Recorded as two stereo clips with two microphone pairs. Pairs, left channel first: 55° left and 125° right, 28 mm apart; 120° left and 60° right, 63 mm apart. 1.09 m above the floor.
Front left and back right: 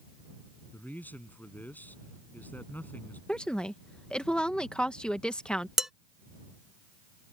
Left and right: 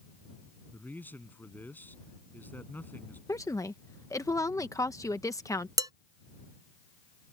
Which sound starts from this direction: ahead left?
A man speaking, at 0.7 s.